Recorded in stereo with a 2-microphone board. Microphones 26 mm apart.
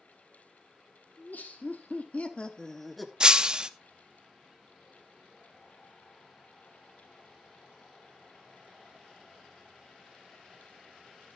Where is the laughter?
80° left, 2 m; by 3.1 s 5° right (ahead or behind), 1.6 m.